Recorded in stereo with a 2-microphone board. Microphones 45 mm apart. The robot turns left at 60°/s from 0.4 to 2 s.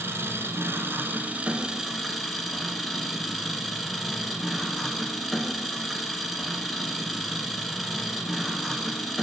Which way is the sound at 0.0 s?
80° right.